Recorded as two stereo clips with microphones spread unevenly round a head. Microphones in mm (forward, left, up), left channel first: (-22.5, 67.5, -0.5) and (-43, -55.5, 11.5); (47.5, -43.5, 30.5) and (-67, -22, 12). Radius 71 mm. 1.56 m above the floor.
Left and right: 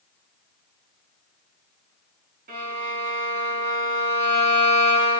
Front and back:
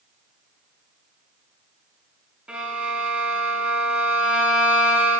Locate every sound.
2.5 s a violin: 110° right, 3.5 m